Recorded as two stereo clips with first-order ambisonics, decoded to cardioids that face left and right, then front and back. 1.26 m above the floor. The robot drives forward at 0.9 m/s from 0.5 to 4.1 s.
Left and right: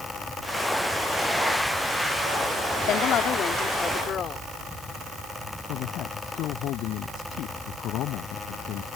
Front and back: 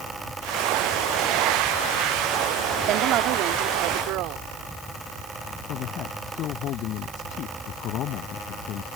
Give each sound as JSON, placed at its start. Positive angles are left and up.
{"t": 2.9, "sound": "a woman speaking", "azimuth_deg": 140}
{"t": 5.7, "sound": "a man speaking", "azimuth_deg": 45}